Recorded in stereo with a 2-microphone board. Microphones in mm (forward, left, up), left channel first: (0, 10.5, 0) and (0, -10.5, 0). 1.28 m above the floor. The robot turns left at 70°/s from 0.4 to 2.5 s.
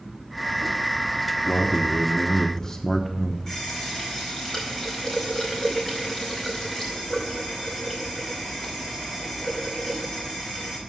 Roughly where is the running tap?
Left.